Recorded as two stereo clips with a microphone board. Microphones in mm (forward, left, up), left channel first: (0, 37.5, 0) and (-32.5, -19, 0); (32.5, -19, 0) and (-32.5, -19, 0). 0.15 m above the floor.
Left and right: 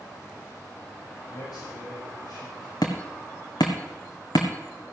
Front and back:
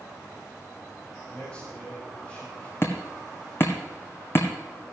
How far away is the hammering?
About 1.9 m.